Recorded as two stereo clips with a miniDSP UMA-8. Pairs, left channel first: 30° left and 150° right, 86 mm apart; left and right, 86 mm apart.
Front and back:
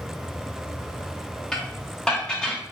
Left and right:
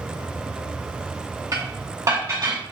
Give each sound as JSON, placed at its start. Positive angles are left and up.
{"t": 1.5, "sound": "dishes clattering", "azimuth_deg": -50, "distance_m": 1.0}